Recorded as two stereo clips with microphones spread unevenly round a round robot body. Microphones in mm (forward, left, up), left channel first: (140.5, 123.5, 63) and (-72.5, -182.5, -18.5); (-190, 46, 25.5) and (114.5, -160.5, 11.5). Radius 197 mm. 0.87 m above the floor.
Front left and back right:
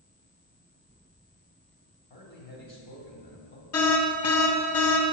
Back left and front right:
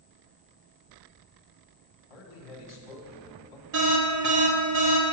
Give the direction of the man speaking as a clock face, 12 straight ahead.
8 o'clock.